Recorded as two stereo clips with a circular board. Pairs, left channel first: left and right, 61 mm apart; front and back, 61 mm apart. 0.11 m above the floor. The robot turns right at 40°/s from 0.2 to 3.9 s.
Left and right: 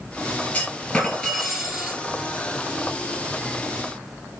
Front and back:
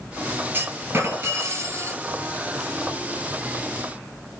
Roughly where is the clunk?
Behind left.